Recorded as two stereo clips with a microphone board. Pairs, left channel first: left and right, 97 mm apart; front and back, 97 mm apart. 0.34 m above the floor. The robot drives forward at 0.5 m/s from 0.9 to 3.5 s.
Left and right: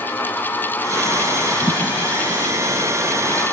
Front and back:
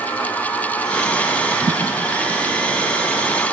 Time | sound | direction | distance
1.6 | a thud | 150° right | 4.5 m